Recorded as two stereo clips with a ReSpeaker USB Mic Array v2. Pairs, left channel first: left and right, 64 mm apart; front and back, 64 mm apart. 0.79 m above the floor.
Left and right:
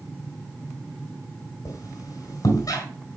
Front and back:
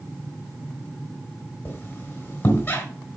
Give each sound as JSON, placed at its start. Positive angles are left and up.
{"t": 1.6, "sound": "a squeak", "azimuth_deg": 55, "distance_m": 3.0}